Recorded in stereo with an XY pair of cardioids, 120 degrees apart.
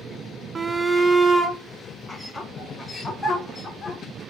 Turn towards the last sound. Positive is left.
turn(degrees=20)